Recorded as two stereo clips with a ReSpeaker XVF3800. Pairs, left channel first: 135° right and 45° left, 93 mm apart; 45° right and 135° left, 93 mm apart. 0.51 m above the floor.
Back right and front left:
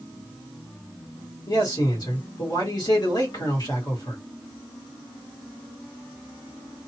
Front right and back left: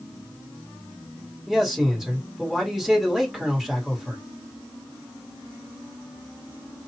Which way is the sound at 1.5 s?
140° right.